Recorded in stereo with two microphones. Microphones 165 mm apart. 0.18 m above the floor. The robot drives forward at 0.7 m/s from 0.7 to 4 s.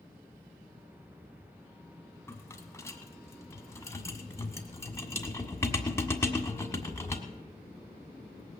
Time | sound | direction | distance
2.3 | a rattle | 15° left (ahead or behind) | 1.5 m